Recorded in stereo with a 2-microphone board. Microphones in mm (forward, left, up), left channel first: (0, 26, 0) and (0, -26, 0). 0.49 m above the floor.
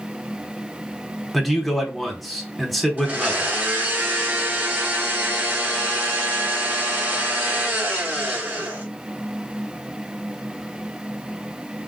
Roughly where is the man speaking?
Centre.